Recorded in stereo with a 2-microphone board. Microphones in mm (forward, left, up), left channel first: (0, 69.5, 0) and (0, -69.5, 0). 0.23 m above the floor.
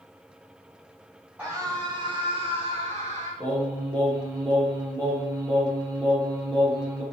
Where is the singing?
25° right (ahead or behind), 3 m.